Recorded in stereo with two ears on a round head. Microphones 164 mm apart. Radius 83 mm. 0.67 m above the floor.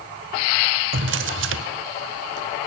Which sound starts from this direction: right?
A drawer, at 0.9 s.